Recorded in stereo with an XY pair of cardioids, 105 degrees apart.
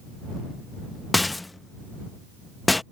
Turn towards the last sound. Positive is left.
turn(degrees=15)